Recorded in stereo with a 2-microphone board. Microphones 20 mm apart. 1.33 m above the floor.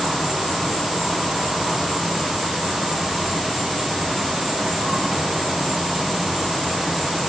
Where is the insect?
50° right (ahead or behind), 6 m.